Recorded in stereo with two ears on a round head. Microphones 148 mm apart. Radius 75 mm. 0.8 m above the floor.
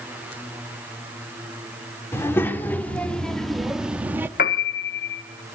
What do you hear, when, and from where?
2.1 s a child speaking: 15° left (ahead or behind), 1.9 m; by 4.3 s 15° right (ahead or behind), 1.1 m
4.4 s a piano: 55° left (ahead or behind), 1.2 m